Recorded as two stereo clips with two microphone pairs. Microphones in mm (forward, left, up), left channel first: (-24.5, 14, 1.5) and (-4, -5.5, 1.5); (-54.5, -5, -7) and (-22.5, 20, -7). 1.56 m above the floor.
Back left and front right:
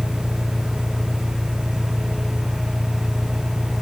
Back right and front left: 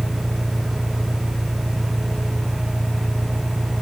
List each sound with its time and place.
0.0 s an engine running: 20° left